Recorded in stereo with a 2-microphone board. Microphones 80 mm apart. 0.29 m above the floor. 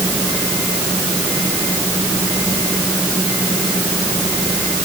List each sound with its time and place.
Only background noise.